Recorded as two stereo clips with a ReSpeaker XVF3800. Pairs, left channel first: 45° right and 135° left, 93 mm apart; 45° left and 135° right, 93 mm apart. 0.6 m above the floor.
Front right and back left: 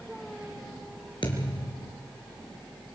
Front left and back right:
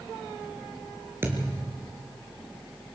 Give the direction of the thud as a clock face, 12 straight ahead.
2 o'clock.